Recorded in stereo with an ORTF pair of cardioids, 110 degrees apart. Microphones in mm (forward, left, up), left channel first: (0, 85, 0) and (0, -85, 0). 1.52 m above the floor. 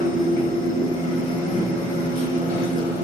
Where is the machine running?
65° left, 1.6 m.